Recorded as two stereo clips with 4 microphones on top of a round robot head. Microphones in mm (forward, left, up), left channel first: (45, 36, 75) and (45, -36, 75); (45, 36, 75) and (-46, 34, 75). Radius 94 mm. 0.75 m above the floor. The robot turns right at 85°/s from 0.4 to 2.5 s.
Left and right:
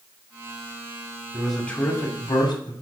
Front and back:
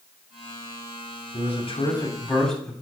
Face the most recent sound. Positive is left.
turn(degrees=85)